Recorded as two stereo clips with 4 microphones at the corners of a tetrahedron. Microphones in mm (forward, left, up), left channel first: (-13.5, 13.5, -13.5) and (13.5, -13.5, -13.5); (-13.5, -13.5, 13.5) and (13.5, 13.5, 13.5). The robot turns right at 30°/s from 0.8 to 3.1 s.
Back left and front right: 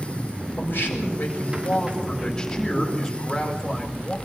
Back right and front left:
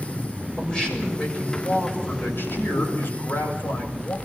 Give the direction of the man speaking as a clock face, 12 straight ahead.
7 o'clock.